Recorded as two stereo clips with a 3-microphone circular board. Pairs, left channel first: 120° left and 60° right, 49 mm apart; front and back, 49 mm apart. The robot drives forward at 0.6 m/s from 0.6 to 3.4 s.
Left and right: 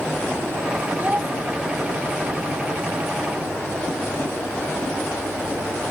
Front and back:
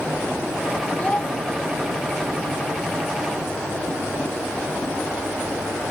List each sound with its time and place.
1.0 s a child speaking: 40° right; by 1.3 s 50° right